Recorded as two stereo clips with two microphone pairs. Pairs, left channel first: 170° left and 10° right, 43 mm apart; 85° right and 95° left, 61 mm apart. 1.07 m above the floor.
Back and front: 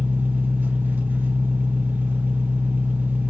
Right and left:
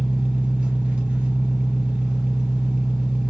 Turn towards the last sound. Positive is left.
turn(degrees=20)